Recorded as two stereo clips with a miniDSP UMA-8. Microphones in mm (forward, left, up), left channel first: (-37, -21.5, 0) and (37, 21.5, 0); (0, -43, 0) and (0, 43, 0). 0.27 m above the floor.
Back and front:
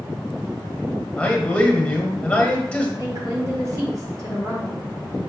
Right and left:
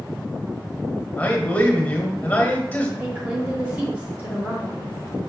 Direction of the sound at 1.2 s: 105° right.